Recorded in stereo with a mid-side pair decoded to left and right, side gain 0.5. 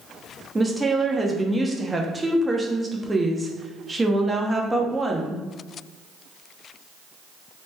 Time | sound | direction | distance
0.6 | a woman speaking | 15° right | 0.7 m